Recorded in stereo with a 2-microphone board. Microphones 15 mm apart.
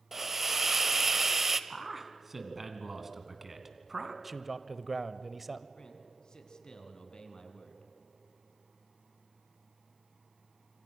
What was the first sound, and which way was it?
A hiss, 20° right (ahead or behind).